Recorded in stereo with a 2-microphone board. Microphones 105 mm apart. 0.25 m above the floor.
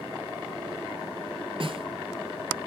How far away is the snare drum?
About 3.5 m.